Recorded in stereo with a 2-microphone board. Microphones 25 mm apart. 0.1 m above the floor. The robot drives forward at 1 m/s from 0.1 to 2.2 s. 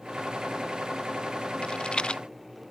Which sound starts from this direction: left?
A rattle, at 1.6 s.